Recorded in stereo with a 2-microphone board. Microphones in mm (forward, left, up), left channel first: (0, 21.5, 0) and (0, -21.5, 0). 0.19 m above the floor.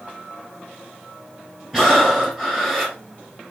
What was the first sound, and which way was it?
Breathing, 15° right (ahead or behind).